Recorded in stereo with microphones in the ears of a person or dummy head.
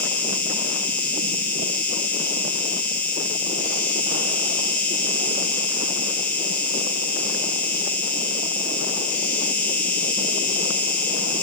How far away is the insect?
About 1.4 m.